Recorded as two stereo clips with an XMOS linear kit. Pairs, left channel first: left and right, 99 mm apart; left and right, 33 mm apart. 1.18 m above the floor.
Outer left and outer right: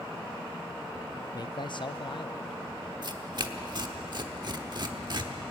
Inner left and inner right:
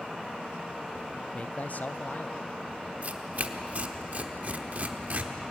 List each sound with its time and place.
1.3 s a man speaking: 40° left (ahead or behind), 0.6 m; by 2.6 s 60° left (ahead or behind), 1.2 m
3.0 s tearing paper: 45° right (ahead or behind), 1.0 m